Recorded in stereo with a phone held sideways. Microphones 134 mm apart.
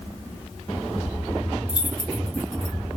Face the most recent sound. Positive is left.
turn(degrees=-60)  # may be behind; listen again after turning